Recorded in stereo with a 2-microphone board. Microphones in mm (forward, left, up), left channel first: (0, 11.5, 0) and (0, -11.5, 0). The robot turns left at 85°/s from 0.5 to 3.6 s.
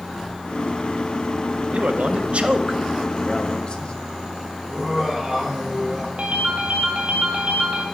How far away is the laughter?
About 3 m.